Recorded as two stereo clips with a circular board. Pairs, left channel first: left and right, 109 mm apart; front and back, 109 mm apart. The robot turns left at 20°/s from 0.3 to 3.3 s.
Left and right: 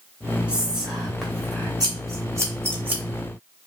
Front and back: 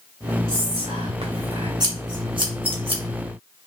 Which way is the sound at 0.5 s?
165° right.